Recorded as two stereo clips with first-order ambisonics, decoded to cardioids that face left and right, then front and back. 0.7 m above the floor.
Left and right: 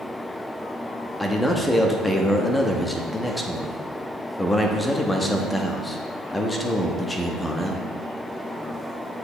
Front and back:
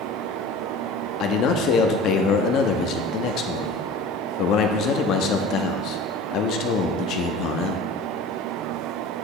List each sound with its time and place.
1.2 s a man speaking: 10° left, 0.7 m